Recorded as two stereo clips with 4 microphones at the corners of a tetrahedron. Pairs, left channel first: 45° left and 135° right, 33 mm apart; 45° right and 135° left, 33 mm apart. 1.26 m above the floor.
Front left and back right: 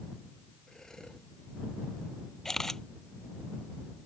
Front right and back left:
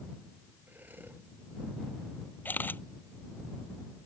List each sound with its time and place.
0.7 s breathing: 115° left
2.5 s a camera shutter: 30° right